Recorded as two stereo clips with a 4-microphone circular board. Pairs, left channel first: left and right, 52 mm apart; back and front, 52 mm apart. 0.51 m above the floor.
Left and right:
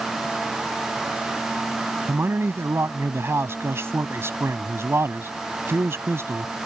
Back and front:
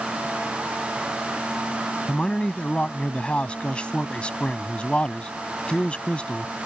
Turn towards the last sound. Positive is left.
turn(degrees=-115)